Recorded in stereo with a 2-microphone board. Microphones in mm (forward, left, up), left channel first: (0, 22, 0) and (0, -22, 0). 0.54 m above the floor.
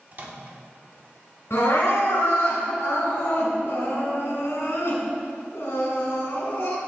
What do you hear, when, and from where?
0.1 s a microwave: 45° right (ahead or behind), 0.9 m
1.5 s crying: 70° left (ahead or behind), 2 m